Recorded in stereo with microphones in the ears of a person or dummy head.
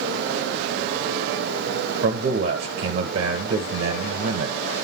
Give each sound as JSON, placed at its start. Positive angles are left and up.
{"t": 2.0, "sound": "a man speaking", "side_deg": -60, "distance_m": 0.9}